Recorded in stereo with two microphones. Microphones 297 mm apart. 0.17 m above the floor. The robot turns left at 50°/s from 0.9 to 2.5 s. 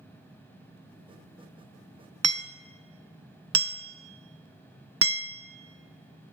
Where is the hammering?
55° right (ahead or behind), 0.6 m; by 6.3 s 50° right (ahead or behind), 0.6 m.